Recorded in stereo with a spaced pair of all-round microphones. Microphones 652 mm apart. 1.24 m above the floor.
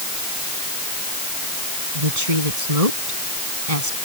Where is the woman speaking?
60° right (ahead or behind).